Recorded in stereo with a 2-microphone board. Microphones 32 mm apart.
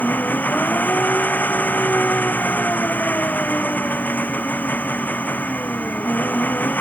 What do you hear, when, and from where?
0.0 s an engine running: 75° left (ahead or behind)